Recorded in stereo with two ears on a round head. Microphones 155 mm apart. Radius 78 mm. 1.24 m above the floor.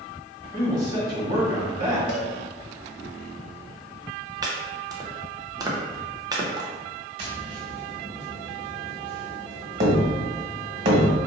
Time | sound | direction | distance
0.5 | a man speaking | 30° right (ahead or behind) | 1.5 m
2.1 | a cowbell | 75° left (ahead or behind) | 0.7 m
4.4 | chopping | 20° right (ahead or behind) | 0.6 m
7.2 | tapping | 40° right (ahead or behind) | 1.3 m